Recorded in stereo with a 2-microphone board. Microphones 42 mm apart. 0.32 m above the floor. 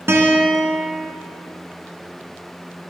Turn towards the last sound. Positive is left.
turn(degrees=-75)  # may be behind; listen again after turning